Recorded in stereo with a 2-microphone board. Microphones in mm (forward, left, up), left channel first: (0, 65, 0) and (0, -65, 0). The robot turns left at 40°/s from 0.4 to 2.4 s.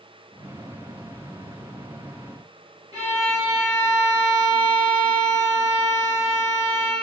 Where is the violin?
30° right (ahead or behind), 1.2 m.